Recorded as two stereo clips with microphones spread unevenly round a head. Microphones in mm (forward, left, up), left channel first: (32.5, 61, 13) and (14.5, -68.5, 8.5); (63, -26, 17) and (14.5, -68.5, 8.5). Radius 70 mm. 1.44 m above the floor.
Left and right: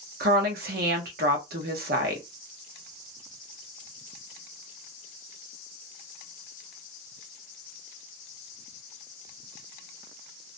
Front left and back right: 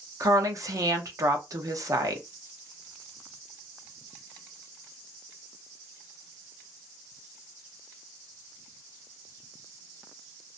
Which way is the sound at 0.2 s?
105° right.